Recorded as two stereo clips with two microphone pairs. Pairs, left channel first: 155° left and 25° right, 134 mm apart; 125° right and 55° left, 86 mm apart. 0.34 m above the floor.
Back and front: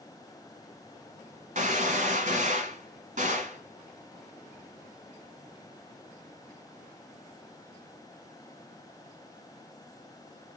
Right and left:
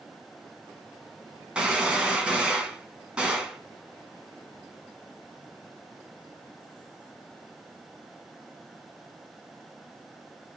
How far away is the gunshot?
About 1.6 m.